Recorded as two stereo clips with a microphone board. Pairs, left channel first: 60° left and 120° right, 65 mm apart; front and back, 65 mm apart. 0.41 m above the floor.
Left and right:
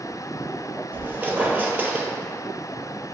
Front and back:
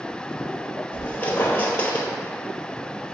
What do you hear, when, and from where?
0.9 s a squeak: 65° right, 0.7 m